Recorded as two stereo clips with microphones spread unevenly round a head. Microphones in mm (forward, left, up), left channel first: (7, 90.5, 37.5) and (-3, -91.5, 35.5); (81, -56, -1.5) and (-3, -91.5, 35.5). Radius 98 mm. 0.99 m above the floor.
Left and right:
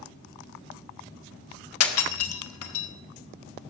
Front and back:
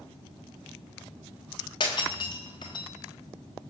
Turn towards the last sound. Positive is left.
turn(degrees=85)